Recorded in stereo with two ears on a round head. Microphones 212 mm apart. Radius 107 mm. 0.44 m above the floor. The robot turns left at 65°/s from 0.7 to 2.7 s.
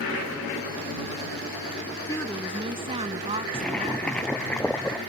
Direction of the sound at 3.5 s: 5° left (ahead or behind).